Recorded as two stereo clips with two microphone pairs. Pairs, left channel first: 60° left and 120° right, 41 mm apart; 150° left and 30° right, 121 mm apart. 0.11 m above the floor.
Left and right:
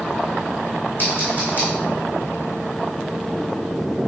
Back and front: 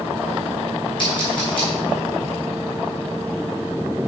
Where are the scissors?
105° left, 3.5 m.